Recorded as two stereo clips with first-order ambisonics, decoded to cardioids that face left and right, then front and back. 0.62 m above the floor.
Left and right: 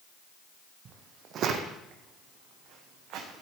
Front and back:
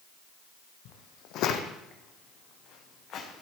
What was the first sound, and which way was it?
Footsteps, 30° right.